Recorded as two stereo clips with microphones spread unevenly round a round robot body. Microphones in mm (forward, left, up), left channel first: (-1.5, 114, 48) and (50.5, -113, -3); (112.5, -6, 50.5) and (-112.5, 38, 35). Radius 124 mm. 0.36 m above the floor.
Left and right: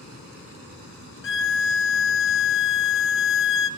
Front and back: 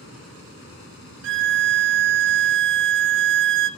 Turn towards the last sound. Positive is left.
turn(degrees=145)